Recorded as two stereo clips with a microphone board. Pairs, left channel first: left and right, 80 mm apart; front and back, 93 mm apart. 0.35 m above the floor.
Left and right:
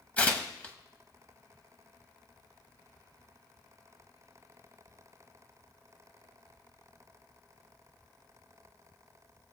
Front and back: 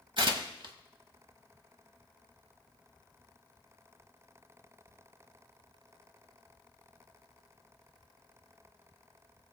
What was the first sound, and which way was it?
Tearing paper, 160° left.